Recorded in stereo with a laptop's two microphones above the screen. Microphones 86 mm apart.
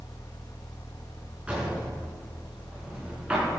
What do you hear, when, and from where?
0.0 s a fan: 50° left (ahead or behind), 1.2 m
1.5 s a drawer: 15° right (ahead or behind), 6 m